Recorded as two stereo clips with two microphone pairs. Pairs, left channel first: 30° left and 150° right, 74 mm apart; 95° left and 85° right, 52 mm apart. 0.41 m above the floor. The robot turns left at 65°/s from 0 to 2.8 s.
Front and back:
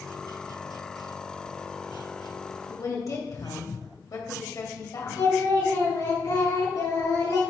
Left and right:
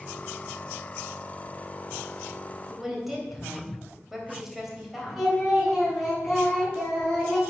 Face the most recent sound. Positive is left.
turn(degrees=10)